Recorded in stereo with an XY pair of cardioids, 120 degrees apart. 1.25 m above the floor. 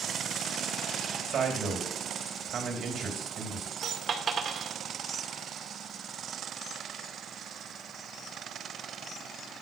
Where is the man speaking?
45° right, 3.5 m.